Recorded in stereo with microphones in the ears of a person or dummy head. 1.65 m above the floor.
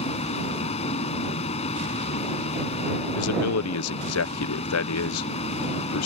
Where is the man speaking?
80° left.